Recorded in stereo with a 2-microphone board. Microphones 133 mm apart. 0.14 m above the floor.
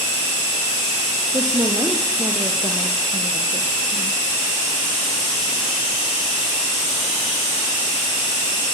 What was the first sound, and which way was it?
A woman speaking, 30° right (ahead or behind).